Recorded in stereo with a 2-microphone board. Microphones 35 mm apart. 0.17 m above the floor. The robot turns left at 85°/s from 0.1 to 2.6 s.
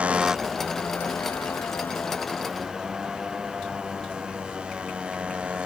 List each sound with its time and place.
0.0 s a motorcycle: 35° right (ahead or behind)